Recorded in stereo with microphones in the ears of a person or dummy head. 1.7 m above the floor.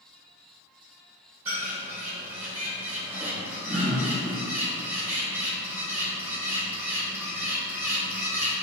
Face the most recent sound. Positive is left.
turn(degrees=-15)  # may be behind; listen again after turning